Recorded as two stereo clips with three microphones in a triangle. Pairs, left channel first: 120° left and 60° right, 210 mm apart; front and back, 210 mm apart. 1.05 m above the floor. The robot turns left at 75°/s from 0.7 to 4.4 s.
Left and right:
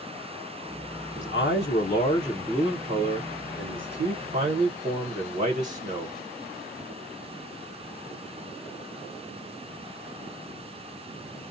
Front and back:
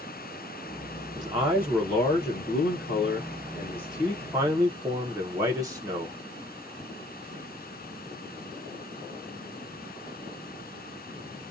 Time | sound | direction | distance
1.1 | a man speaking | 135° left | 0.6 m